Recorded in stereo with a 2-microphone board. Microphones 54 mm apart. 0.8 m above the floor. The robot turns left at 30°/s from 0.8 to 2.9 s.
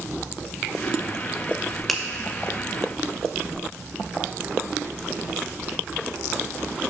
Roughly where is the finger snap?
Centre.